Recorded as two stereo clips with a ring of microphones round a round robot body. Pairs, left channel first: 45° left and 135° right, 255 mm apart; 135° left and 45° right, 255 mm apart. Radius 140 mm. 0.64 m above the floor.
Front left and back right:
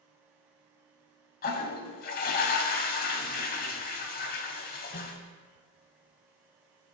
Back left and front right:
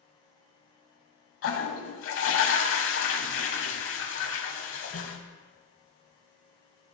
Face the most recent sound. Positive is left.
turn(degrees=100)